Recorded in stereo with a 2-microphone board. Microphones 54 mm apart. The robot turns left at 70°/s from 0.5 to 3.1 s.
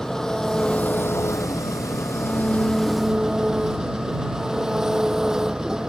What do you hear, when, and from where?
0.0 s an engine running: 170° left; by 5.9 s 10° right